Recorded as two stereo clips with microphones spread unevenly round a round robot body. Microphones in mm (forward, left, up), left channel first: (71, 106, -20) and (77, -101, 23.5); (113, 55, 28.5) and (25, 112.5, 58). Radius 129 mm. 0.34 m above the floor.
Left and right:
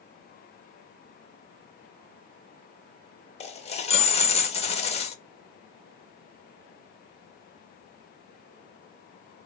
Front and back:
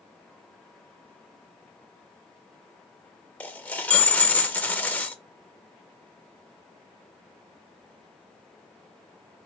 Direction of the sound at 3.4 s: 35° left.